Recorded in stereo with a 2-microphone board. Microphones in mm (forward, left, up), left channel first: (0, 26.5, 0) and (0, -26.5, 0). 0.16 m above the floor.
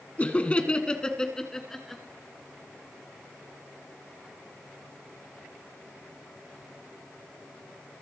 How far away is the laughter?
About 1.2 m.